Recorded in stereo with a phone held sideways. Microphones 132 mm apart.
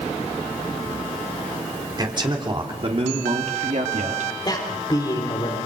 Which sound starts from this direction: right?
A man speaking, at 2.0 s.